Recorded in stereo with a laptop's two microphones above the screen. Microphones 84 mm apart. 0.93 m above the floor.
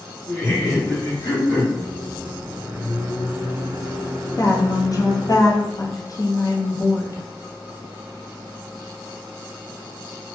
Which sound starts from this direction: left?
A woman speaking, at 4.4 s.